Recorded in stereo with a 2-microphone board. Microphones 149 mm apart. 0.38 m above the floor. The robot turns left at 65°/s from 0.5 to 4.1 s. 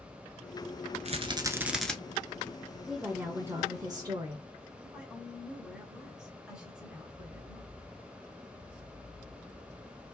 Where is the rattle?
130° right, 0.7 m; by 1.9 s 170° left, 0.7 m.